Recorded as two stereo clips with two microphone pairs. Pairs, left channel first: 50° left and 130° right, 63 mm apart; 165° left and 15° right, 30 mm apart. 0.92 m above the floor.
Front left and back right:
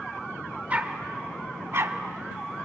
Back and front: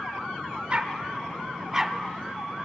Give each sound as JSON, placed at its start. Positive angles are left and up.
{"t": 0.7, "sound": "a dog barking", "azimuth_deg": -60, "distance_m": 1.3}